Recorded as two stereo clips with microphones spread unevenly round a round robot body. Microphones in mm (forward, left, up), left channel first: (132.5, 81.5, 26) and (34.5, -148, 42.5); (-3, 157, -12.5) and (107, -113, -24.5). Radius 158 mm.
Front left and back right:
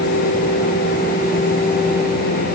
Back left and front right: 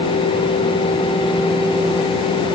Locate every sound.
Only background noise.